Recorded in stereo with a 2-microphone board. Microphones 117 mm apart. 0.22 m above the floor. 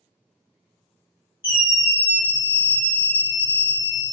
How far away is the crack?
I don't hear a crack.